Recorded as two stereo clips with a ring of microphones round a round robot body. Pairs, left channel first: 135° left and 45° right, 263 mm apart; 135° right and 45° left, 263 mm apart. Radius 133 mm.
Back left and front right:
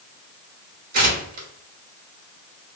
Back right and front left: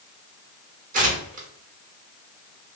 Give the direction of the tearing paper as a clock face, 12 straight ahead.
12 o'clock.